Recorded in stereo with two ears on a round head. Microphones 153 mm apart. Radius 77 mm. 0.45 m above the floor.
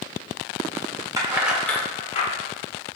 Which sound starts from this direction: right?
Keys jangling, at 1.2 s.